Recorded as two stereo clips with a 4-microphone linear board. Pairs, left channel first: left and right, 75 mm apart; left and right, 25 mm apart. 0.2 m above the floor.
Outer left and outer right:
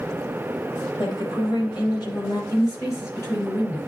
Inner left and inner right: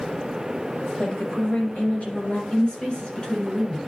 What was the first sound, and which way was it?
A woman speaking, 45° left (ahead or behind).